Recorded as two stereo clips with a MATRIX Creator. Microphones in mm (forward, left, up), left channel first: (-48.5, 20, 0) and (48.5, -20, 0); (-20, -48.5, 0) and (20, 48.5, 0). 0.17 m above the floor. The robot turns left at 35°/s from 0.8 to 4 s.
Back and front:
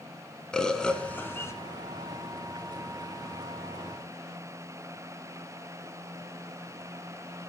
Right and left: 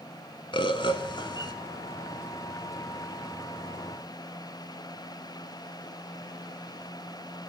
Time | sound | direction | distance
0.5 | a bird | 120° right | 0.7 m